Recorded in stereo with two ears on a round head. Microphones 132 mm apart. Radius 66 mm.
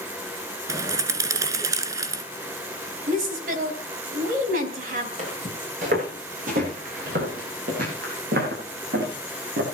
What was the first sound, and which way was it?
A bird, 25° right (ahead or behind).